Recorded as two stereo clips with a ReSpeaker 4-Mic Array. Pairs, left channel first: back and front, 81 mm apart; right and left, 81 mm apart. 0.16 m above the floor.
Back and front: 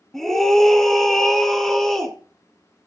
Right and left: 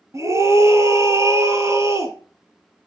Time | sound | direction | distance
0.1 | a scream | 95° left | 1.6 m